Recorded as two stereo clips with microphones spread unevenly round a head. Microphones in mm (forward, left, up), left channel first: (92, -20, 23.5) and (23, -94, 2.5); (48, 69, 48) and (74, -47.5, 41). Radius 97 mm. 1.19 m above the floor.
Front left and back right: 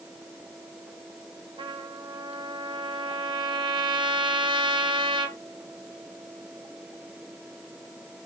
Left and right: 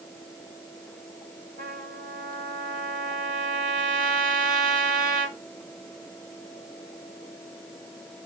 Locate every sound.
1.6 s a trumpet: 95° right, 1.8 m